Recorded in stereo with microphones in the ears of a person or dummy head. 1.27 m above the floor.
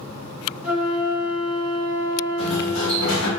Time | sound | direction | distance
0.6 | a flute | 5° right (ahead or behind) | 1.5 m
2.4 | a sliding door | 90° left | 1.9 m